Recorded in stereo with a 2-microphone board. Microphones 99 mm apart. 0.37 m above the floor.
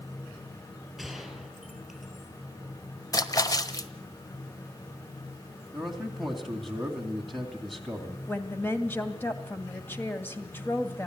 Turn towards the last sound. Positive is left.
turn(degrees=20)  # may be behind; listen again after turning